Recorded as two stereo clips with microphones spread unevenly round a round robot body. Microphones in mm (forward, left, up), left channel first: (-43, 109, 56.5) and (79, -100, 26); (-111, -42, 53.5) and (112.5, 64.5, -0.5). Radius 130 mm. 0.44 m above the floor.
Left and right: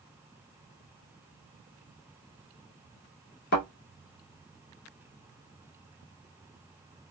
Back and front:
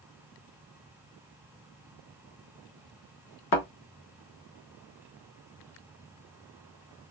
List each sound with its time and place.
3.5 s a thud: 170° left, 0.8 m